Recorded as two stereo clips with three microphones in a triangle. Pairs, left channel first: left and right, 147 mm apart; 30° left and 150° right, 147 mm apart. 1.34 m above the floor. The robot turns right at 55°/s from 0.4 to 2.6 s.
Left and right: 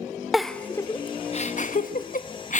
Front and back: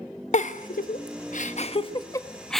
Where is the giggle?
Straight ahead, 1.2 m; by 2.6 s 120° left, 1.2 m.